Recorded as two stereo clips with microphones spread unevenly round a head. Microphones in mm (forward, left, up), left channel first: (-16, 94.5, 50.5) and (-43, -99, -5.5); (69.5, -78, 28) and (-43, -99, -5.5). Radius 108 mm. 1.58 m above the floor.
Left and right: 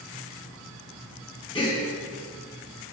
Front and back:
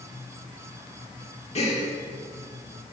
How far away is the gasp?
About 2.5 m.